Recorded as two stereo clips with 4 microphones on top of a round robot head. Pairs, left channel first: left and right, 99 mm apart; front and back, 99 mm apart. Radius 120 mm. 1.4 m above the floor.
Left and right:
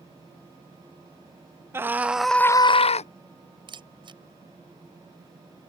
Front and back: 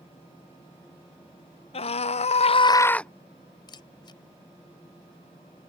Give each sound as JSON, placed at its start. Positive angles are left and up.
{"t": 1.7, "sound": "a scream", "azimuth_deg": -25}
{"t": 3.7, "sound": "a camera shutter", "azimuth_deg": -50}